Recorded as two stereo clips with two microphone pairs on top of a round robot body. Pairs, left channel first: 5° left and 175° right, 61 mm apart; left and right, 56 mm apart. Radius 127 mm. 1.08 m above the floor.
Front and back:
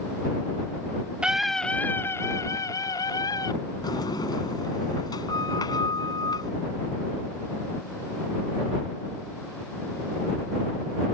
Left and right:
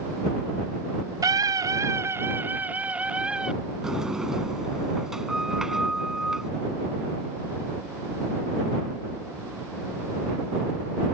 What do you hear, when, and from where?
1.2 s a scream: 100° right; by 3.5 s 15° right
3.8 s a sliding door: 10° right